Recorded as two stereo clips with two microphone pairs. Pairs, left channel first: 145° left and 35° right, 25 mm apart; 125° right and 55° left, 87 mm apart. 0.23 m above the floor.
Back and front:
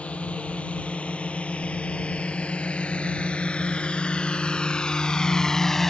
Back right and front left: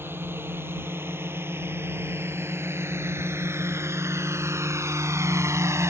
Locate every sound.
0.0 s a drone: 120° left; by 5.9 s 80° left